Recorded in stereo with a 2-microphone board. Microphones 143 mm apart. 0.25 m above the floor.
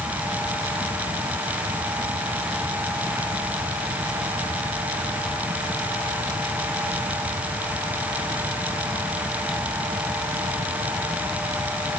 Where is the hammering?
No hammering in this recording.